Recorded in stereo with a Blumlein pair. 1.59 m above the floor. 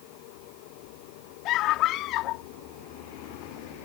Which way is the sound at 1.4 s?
35° left.